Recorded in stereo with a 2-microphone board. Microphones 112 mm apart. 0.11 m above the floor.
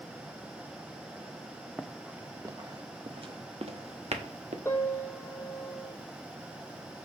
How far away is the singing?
No singing in this recording.